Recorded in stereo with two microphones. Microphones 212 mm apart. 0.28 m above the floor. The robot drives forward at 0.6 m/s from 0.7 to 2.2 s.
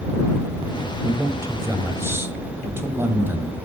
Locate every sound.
1.0 s a man speaking: 15° right (ahead or behind), 1.1 m; by 3.6 s 10° right (ahead or behind), 1.4 m